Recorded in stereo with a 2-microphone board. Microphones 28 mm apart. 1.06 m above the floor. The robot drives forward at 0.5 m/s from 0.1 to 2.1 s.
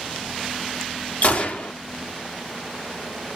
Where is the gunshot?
55° left (ahead or behind), 0.9 m; by 1.7 s 60° left (ahead or behind), 0.8 m.